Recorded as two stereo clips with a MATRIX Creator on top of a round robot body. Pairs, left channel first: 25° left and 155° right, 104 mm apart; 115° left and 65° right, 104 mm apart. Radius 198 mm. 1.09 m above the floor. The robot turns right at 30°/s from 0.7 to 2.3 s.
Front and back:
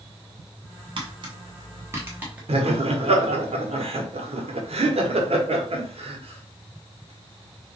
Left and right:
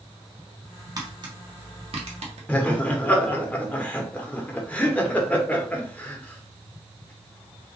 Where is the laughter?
170° right, 1.3 m.